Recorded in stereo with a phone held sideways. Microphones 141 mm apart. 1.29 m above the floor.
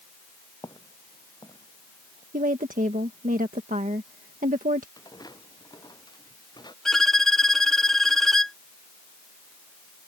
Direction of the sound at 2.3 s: 70° right (ahead or behind).